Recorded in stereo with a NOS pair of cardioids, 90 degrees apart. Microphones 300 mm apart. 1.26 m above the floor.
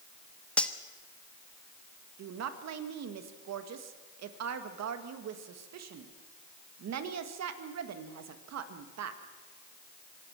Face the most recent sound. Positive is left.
turn(degrees=-65)